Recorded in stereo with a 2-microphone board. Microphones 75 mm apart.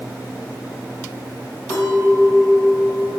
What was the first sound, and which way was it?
A clink, 65° left (ahead or behind).